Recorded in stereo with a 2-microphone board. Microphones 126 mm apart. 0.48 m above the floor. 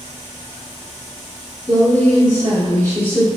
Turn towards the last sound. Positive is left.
turn(degrees=10)  # may be behind; listen again after turning